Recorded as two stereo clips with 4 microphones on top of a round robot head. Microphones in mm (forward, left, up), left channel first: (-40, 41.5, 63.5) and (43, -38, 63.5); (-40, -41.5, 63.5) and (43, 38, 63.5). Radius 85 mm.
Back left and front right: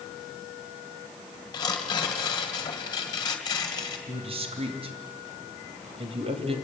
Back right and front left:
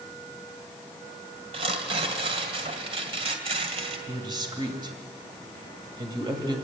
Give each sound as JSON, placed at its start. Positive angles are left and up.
{"t": 1.5, "sound": "tearing paper", "azimuth_deg": 80, "distance_m": 2.5}
{"t": 4.1, "sound": "a man speaking", "azimuth_deg": -10, "distance_m": 3.0}